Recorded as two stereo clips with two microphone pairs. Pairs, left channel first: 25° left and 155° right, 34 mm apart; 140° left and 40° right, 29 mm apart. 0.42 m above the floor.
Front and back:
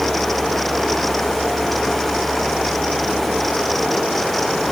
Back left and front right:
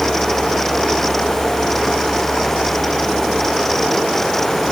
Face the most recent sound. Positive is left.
No sound to turn to.